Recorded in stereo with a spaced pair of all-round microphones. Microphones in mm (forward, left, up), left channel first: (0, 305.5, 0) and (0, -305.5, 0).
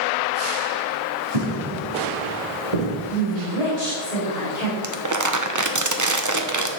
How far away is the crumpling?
About 0.8 m.